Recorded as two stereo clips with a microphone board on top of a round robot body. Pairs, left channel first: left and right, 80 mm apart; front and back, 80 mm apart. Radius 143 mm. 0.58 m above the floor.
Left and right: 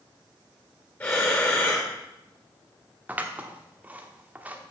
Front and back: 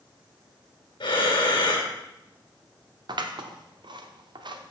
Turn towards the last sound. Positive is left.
turn(degrees=-160)